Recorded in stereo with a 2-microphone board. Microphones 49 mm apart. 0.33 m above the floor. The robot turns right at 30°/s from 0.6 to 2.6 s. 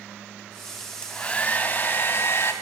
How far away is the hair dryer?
About 2.5 m.